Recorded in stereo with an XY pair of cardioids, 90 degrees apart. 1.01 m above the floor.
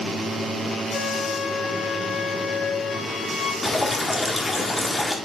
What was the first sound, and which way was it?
A flute, 35° left.